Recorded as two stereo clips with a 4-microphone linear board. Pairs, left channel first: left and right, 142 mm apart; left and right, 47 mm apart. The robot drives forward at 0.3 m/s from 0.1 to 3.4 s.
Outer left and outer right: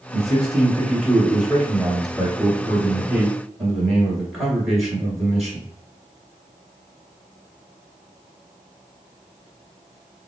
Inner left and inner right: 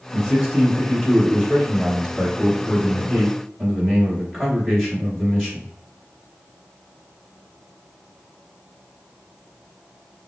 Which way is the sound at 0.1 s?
Centre (ahead or behind).